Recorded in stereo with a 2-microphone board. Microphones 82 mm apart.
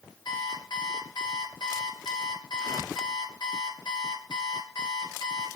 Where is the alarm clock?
70° left (ahead or behind), 3 m.